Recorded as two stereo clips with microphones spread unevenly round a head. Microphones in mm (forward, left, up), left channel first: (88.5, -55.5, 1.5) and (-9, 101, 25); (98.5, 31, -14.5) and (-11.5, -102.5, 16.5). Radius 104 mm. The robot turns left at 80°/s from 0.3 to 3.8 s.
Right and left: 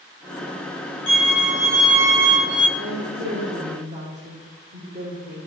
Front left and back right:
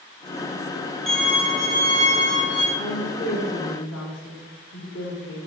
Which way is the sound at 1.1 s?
40° right.